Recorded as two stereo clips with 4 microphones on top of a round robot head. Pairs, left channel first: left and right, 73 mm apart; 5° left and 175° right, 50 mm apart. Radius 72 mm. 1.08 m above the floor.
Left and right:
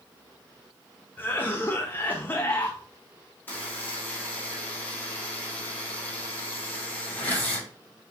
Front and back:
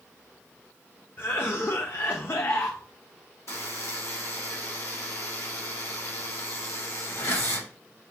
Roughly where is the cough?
Ahead left.